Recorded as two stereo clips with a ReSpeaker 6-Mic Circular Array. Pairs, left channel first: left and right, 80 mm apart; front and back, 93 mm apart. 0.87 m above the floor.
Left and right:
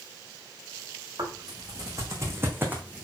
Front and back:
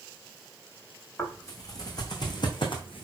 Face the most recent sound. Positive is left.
turn(degrees=-15)